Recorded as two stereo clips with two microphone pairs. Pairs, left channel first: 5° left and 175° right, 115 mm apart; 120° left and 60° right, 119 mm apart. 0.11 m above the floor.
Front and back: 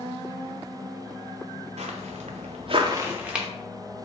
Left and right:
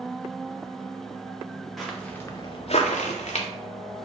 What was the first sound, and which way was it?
Footsteps, 150° right.